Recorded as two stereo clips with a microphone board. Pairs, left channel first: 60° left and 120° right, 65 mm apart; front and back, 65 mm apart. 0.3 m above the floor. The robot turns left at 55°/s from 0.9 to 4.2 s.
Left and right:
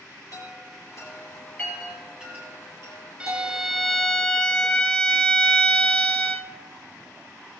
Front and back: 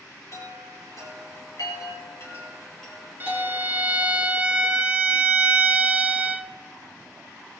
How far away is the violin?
About 0.8 m.